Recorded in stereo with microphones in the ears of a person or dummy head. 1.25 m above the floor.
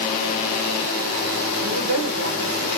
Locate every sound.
1.6 s a woman speaking: 65° right (ahead or behind), 1.4 m